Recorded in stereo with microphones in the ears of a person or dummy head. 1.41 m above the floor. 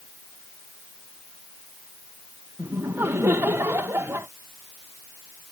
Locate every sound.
2.6 s laughter: 10° right (ahead or behind)